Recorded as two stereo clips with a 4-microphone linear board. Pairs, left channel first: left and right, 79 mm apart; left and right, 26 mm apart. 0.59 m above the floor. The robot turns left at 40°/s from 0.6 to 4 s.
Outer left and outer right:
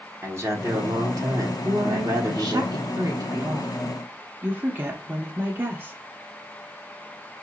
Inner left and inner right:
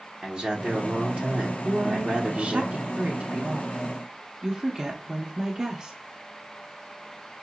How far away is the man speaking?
About 1.4 m.